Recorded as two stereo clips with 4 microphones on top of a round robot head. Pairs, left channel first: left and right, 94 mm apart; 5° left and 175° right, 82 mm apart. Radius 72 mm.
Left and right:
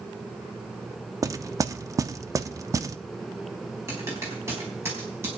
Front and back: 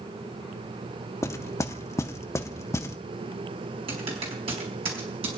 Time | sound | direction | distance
1.2 | knocking | 45° right | 0.7 m
3.9 | typing on a keyboard | 160° right | 4.5 m